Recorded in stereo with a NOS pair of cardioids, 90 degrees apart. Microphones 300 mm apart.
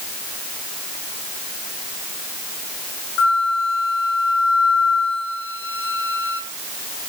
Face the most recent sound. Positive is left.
turn(degrees=50)